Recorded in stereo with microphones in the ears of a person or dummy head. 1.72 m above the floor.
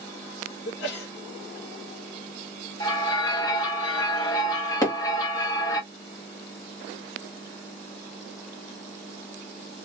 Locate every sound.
0.7 s a sneeze: 75° left (ahead or behind), 1.3 m
2.8 s a bell: 20° left (ahead or behind), 1.1 m
4.8 s hammering: 25° left (ahead or behind), 1.4 m